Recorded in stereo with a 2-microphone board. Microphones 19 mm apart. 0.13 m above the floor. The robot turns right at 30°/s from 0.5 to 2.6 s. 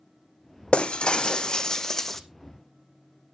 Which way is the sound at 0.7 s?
115° left.